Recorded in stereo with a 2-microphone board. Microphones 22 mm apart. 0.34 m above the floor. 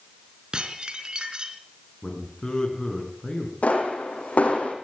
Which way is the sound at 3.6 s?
65° left (ahead or behind).